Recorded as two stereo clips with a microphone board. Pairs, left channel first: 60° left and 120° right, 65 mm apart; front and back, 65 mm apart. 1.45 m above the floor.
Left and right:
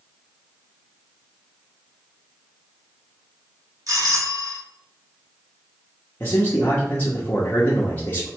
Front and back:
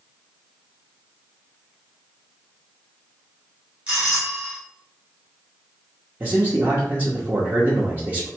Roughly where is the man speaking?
Behind left.